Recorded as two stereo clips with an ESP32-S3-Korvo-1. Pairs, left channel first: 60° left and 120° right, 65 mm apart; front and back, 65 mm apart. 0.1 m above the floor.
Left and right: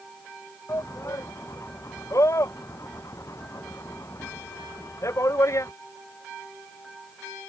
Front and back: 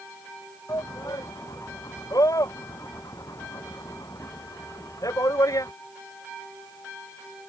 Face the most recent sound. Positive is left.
turn(degrees=25)